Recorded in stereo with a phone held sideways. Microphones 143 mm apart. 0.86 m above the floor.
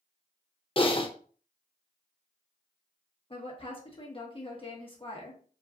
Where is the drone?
I don't hear a drone.